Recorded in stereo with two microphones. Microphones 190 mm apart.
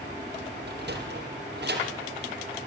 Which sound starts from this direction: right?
A sliding door, at 0.7 s.